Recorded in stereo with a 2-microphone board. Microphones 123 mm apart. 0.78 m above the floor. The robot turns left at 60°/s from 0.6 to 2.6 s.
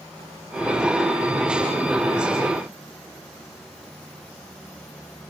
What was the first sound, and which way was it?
Only background noise.